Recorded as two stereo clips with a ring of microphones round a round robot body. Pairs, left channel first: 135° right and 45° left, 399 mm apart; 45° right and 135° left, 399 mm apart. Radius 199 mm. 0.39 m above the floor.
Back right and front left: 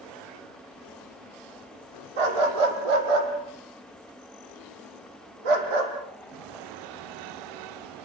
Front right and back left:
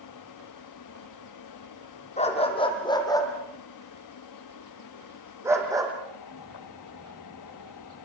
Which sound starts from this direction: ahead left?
A dog barking, at 2.2 s.